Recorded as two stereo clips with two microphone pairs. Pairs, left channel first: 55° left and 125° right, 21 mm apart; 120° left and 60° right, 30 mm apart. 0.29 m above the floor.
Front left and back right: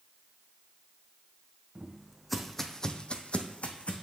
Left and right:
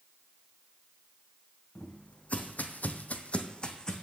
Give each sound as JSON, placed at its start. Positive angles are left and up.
{"t": 1.8, "sound": "footsteps", "azimuth_deg": 165, "distance_m": 1.1}